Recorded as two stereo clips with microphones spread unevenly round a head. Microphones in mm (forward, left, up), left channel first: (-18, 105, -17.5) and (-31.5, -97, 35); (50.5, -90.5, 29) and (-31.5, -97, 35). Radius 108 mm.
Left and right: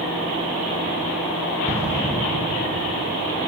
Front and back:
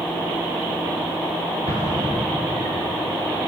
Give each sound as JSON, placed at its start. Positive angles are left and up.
{"t": 1.7, "sound": "an explosion", "azimuth_deg": 165, "distance_m": 6.0}